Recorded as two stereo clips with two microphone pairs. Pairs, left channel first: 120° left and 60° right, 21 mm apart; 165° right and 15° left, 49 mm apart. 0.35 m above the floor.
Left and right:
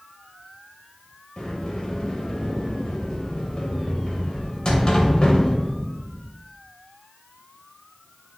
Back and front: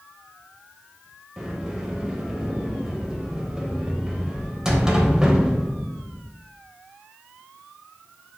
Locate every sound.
1.4 s a sliding door: 85° left, 0.8 m